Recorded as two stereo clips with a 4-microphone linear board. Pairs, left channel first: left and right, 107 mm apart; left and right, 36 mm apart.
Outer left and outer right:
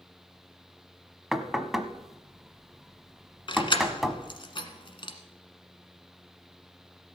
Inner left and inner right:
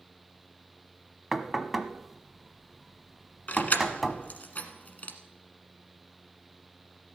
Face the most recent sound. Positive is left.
turn(degrees=50)  # may be behind; listen again after turning